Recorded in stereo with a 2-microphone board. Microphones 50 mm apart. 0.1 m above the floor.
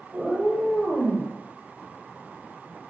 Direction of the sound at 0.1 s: 5° right (ahead or behind).